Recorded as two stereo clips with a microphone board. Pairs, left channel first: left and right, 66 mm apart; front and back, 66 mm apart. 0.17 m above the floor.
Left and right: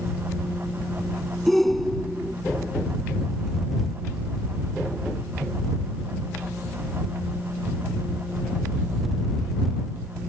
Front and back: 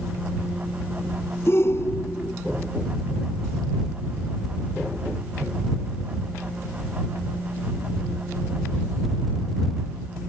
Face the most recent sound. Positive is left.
turn(degrees=5)